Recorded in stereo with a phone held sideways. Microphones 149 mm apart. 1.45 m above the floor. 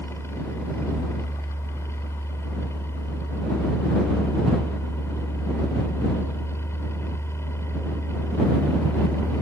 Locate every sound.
0.0 s a fan: 15° left (ahead or behind)